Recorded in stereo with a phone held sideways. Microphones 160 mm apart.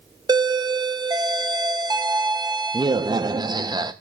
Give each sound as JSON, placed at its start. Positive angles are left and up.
{"t": 0.3, "sound": "a doorbell", "side_deg": -25, "distance_m": 0.7}